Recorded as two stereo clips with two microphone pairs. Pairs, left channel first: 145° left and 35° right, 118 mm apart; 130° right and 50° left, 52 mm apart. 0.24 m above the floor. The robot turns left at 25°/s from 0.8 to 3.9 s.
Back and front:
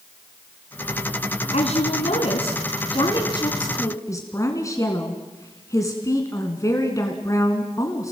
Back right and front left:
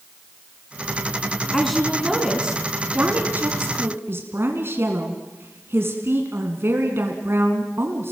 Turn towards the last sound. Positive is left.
turn(degrees=85)